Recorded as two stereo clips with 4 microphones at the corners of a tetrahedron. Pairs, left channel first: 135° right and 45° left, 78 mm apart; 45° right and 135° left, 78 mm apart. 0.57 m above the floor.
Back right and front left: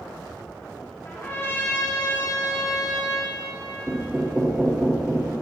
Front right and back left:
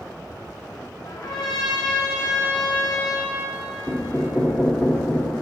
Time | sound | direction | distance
1.1 | a trumpet | 80° right | 1.1 m
3.9 | knocking | 10° right | 0.9 m